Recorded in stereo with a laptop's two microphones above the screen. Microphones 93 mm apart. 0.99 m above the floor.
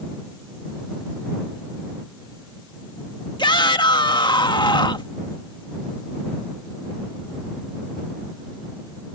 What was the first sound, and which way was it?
A shout, 55° left (ahead or behind).